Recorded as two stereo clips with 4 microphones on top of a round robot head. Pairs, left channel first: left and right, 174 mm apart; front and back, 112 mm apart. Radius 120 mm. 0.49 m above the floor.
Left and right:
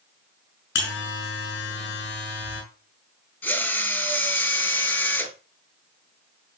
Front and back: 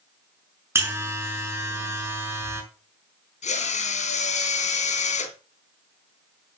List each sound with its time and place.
0.8 s a buzzer: 115° left, 6 m
3.4 s a drill: 10° left, 3.5 m